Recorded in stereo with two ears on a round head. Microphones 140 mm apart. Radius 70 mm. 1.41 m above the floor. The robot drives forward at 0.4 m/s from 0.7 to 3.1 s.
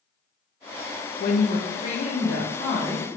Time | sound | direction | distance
1.2 | a woman speaking | 60° left (ahead or behind) | 0.6 m